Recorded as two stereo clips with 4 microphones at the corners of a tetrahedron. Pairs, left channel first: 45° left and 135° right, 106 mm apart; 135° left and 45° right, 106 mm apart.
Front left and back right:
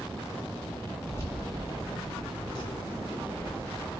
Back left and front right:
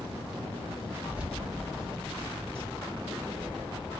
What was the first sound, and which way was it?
Keys jangling, 10° left.